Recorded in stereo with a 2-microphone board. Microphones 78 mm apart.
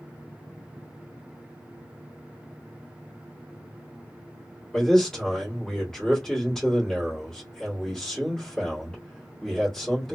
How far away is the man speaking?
About 1.9 m.